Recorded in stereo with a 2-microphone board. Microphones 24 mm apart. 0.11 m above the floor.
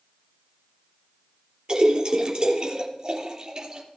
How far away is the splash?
About 3.5 m.